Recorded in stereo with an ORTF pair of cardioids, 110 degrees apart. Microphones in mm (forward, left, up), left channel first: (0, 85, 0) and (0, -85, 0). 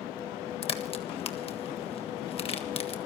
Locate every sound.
0.6 s a crack: 35° left, 1.5 m